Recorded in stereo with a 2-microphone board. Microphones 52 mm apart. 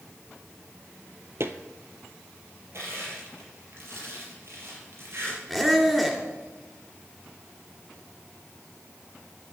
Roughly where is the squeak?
Centre.